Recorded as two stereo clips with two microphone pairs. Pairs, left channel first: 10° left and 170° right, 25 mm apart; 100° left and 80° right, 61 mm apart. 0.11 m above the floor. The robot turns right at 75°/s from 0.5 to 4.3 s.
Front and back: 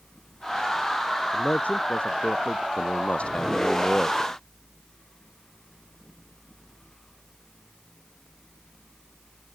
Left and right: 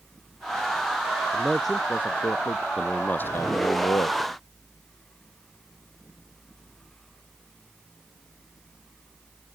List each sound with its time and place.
1.3 s a man speaking: 15° right; by 2.7 s 85° left
2.8 s a man speaking: 5° left; by 4.3 s 125° left